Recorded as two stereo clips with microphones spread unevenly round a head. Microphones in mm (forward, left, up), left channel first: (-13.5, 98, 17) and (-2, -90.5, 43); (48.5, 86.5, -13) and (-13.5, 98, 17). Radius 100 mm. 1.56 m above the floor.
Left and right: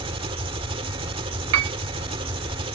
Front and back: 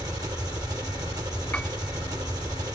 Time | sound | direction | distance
0.0 | an engine running | 150° right | ?
1.5 | a piano | 100° right | ?